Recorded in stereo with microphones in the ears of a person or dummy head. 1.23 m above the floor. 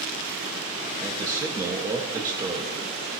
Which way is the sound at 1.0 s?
20° right (ahead or behind).